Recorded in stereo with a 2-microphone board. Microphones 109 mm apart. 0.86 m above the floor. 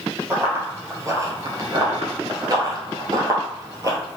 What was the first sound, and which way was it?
Running footsteps, 20° right (ahead or behind).